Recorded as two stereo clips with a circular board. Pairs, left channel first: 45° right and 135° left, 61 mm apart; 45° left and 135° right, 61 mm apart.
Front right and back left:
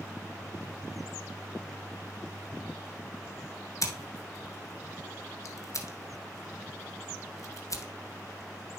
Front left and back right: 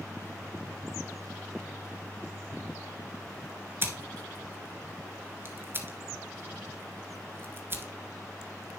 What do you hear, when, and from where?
3.8 s scissors: 80° right, 1.3 m